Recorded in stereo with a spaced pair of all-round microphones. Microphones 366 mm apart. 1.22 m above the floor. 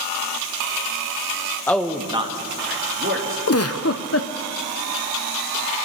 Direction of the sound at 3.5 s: 40° left (ahead or behind).